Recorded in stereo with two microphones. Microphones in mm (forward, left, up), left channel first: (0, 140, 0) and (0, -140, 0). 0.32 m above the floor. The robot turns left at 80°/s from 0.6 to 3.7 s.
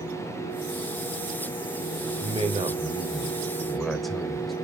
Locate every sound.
2.2 s a man speaking: 20° right (ahead or behind), 1.3 m; by 4.5 s centre (ahead or behind), 1.3 m